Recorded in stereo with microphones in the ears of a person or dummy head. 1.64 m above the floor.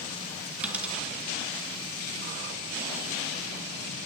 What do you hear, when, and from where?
0.6 s a dropped coin: 10° right (ahead or behind), 4 m